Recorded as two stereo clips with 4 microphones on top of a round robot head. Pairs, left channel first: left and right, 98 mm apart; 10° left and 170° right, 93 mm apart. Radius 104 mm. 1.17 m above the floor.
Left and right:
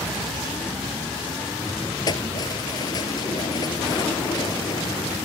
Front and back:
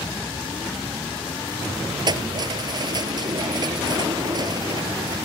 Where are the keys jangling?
145° left.